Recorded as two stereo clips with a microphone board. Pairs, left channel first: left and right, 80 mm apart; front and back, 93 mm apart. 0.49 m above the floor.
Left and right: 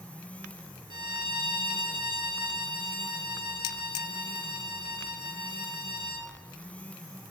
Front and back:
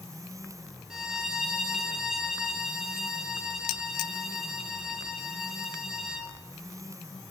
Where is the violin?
95° right, 0.8 m.